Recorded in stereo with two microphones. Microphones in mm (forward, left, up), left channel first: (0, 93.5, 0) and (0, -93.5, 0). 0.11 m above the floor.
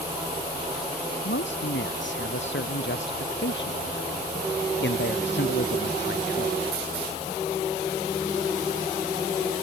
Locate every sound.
1.2 s a man speaking: 85° left; by 6.6 s 70° left (ahead or behind)